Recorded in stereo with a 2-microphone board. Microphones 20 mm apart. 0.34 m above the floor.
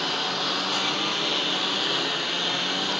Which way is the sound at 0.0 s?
5° right (ahead or behind).